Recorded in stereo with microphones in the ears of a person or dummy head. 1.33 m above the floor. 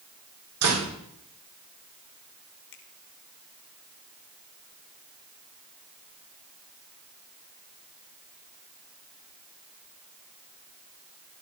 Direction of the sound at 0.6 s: 85° right.